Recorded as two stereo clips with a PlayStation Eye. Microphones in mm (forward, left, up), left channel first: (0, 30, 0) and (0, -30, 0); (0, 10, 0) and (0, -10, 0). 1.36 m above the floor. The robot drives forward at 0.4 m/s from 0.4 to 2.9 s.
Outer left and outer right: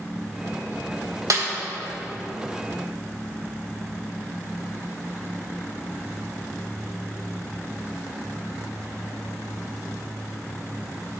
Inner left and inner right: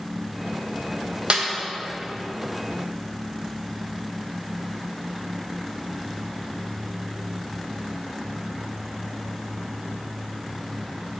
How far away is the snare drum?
About 1.2 m.